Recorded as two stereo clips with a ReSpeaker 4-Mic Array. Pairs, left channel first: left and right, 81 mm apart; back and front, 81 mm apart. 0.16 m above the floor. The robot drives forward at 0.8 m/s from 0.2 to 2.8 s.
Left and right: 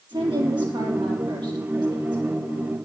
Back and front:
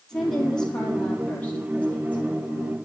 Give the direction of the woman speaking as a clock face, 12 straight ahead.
3 o'clock.